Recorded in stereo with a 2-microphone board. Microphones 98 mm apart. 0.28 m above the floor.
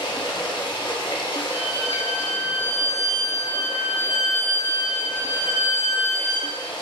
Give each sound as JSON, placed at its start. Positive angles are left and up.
{"t": 0.0, "sound": "running water", "side_deg": 50, "distance_m": 0.8}
{"t": 1.5, "sound": "a violin", "side_deg": -20, "distance_m": 1.1}